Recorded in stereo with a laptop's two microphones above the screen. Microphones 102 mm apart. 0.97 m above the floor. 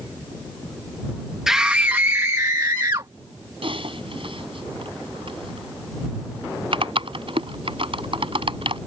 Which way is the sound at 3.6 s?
65° right (ahead or behind).